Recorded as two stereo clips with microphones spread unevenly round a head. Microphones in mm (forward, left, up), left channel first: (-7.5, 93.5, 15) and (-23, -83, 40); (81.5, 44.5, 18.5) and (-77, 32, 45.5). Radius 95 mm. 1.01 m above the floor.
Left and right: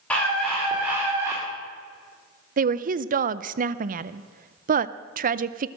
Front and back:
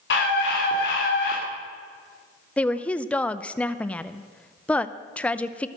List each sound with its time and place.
0.1 s a scream: straight ahead, 3.5 m; by 1.4 s 25° right, 2 m
2.6 s a woman speaking: 65° right, 0.6 m